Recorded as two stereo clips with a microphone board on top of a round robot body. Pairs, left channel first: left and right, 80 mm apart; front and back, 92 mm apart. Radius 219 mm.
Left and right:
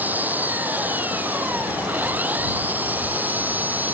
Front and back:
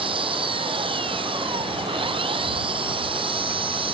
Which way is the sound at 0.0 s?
160° right.